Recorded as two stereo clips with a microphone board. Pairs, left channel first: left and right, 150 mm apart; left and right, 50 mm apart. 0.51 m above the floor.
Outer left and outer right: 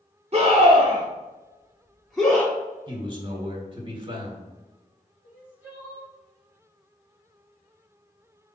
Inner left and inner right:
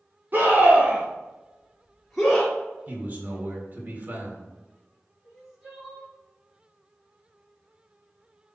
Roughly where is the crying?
Centre.